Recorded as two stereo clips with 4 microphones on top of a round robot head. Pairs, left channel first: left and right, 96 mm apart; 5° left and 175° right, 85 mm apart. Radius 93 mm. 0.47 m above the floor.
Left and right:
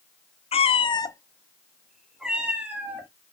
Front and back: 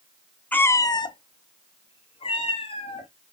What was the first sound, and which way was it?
A cat meowing, 80° left.